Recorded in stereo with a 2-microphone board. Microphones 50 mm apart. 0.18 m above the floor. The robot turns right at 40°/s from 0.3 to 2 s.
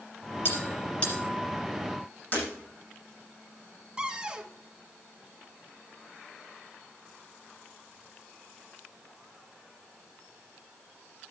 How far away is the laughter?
I don't hear laughter.